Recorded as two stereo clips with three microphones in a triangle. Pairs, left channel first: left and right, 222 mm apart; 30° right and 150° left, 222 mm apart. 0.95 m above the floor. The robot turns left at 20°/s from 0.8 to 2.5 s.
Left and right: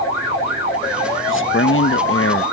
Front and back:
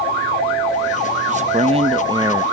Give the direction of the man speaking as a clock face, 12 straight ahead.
9 o'clock.